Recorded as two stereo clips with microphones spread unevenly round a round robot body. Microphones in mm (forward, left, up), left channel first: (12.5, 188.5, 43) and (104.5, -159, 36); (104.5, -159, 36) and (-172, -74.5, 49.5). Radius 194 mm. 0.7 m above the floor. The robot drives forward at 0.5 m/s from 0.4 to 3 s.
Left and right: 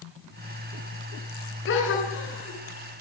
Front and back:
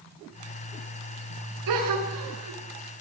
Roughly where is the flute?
No flute in this recording.